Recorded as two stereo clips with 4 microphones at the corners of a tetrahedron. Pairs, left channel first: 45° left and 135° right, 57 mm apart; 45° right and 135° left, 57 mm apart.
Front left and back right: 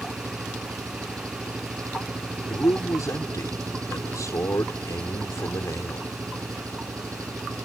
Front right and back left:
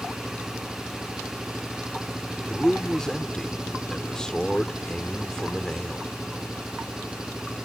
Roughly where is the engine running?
Behind right.